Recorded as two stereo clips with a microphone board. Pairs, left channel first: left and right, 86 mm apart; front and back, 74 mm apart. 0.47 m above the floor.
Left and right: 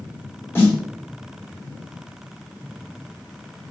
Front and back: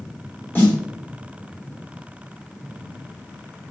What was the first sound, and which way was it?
A snare drum, 45° left.